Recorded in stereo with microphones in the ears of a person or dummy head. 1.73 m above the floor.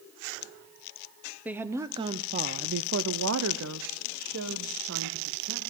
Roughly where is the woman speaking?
Centre.